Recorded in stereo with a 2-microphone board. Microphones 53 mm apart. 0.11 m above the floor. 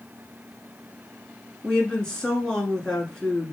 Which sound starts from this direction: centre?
A woman speaking, at 1.6 s.